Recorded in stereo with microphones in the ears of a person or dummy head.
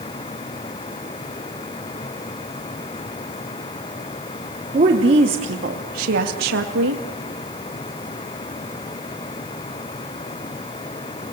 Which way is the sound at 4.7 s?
35° right (ahead or behind).